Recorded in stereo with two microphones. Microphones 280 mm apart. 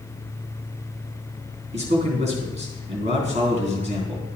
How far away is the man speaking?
About 3.5 m.